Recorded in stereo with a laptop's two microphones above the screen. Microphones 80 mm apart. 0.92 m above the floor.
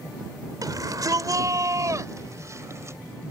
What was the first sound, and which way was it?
A shout, 50° right (ahead or behind).